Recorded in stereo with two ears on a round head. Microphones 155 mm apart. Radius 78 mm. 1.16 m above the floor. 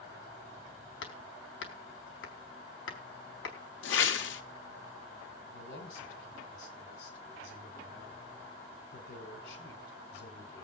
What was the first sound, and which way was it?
Hammering, 80° left.